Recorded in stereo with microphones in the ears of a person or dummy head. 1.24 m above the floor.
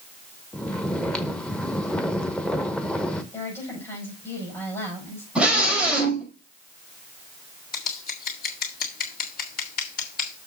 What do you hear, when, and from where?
0.5 s snoring: 10° left (ahead or behind), 0.8 m
3.3 s a woman speaking: 10° left (ahead or behind), 6 m
5.3 s a scream: 5° right (ahead or behind), 5.5 m
7.7 s scissors: 55° left (ahead or behind), 1.9 m